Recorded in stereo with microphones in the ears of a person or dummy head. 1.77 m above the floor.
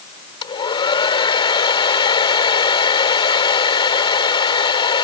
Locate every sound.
0.4 s a hair dryer: 30° left (ahead or behind)